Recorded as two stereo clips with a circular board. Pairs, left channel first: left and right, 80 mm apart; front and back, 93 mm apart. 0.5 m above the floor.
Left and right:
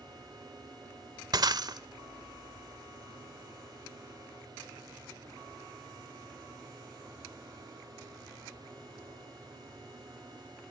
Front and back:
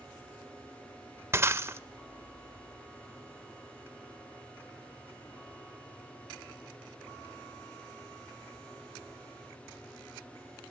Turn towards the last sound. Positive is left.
turn(degrees=-120)